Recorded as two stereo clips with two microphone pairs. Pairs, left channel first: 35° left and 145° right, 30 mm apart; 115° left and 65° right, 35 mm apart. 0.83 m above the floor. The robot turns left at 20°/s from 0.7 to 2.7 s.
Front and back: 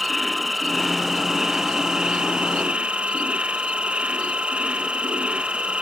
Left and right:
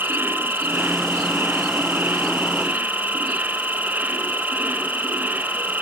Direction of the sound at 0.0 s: 55° right.